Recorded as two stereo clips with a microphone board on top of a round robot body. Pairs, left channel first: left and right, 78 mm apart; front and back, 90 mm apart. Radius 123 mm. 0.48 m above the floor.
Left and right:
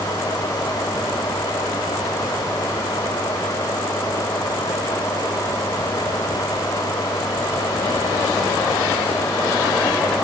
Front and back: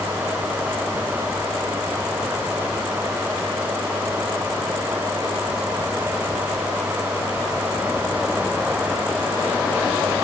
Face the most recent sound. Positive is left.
No sound to turn to.